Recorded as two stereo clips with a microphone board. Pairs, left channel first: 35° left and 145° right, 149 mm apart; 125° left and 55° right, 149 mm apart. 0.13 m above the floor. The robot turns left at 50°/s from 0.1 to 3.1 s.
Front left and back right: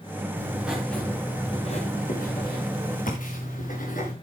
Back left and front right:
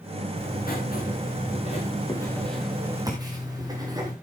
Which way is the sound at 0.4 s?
145° left.